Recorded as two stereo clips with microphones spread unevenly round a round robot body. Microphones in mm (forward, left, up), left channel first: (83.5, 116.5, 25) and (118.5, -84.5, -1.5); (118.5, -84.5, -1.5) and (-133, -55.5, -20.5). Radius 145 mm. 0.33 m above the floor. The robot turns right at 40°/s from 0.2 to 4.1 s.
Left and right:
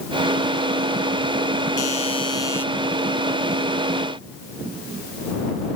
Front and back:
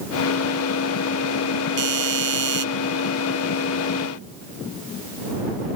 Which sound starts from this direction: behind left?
A doorbell, at 1.8 s.